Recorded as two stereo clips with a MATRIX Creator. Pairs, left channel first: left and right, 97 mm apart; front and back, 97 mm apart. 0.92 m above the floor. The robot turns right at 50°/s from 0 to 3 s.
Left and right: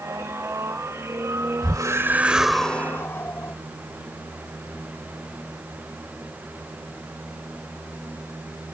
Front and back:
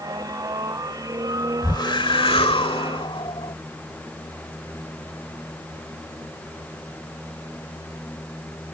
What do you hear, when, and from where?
1.6 s a whoosh: 45° right; by 3.5 s 25° left